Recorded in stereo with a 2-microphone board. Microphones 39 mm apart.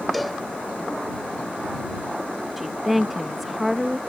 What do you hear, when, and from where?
0.1 s a cowbell: centre (ahead or behind)
2.6 s a woman speaking: 5° right (ahead or behind)